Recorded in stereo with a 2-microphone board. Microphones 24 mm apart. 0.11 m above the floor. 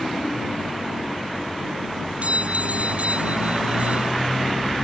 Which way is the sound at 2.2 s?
60° right (ahead or behind).